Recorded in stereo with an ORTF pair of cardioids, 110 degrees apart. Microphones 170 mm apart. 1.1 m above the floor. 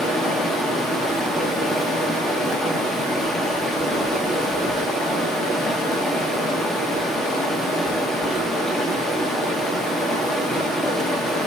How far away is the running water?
About 1.4 m.